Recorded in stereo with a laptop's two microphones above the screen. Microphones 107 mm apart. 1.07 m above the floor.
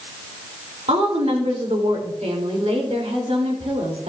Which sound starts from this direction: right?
A woman speaking, at 0.9 s.